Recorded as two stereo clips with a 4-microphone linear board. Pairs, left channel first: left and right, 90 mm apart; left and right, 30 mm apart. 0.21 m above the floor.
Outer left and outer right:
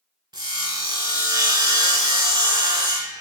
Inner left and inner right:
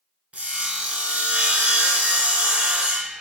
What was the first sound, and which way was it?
Sawing, 55° right (ahead or behind).